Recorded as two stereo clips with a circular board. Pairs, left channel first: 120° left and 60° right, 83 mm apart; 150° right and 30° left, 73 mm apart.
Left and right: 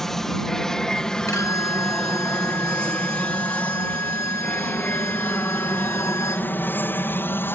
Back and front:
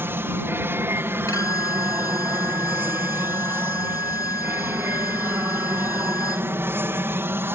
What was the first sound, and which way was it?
An aircraft, 35° left.